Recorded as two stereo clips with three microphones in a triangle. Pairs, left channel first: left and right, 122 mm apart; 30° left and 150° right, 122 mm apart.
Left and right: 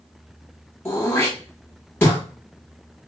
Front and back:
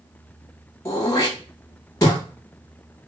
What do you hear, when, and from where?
0.8 s throat clearing: 45° left, 1.0 m